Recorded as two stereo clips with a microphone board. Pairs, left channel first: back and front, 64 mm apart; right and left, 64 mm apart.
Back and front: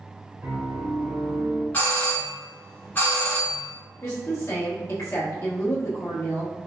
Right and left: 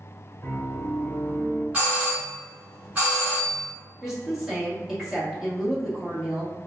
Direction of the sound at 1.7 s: 140° left.